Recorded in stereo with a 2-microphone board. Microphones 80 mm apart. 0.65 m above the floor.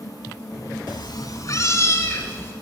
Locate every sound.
0.9 s a cat meowing: 70° left (ahead or behind), 1.1 m; by 2.5 s 30° left (ahead or behind), 3 m